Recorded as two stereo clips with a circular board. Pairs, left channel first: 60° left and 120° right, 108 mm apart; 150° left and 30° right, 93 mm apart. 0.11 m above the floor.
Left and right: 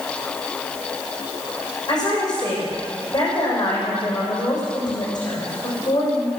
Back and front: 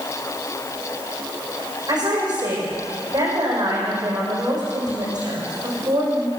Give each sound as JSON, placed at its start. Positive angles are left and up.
{"t": 1.9, "sound": "a woman speaking", "azimuth_deg": 10, "distance_m": 7.0}